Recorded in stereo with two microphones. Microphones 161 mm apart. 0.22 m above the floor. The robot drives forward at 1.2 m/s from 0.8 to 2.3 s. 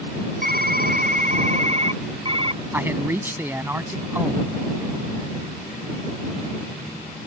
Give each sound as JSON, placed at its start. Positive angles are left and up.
{"t": 0.4, "sound": "typing on a keyboard", "side_deg": -65}
{"t": 2.7, "sound": "a man speaking", "side_deg": -15}